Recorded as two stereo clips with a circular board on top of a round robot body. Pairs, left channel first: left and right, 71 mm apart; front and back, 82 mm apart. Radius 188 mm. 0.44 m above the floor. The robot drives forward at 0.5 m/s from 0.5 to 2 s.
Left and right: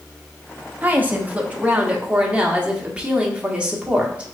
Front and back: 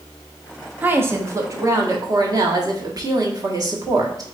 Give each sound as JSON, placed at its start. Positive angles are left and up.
{"t": 0.8, "sound": "a woman speaking", "azimuth_deg": -135, "distance_m": 1.1}